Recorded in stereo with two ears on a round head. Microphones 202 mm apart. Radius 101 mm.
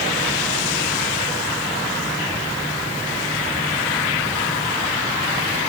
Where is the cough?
I don't hear a cough.